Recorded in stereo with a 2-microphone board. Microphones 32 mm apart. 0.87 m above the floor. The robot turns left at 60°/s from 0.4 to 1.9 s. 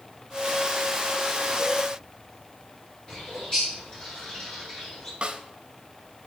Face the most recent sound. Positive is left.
turn(degrees=-35)  # may be behind; listen again after turning